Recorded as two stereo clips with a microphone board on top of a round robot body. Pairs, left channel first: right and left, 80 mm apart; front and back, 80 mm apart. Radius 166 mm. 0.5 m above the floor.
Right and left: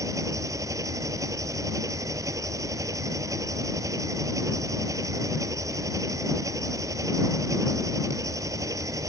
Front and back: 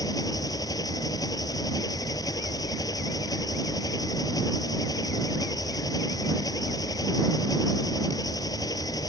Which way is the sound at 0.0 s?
40° left.